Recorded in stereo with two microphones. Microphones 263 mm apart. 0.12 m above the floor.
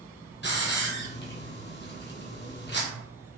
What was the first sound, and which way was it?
A hiss, 40° left (ahead or behind).